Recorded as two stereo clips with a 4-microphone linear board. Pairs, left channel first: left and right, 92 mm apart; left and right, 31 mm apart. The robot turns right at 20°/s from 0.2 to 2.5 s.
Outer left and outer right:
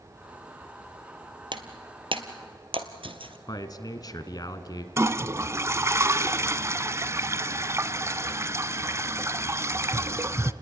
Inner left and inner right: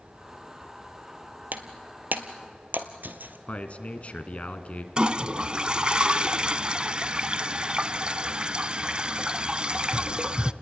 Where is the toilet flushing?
30° right (ahead or behind), 0.5 m.